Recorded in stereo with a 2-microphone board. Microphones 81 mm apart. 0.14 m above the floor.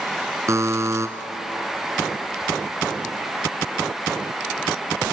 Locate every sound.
0.5 s a buzzer: 40° right (ahead or behind), 1.3 m